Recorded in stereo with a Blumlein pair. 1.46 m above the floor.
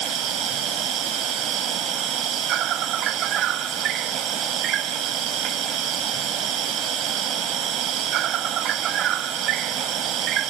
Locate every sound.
0.0 s an insect: 30° right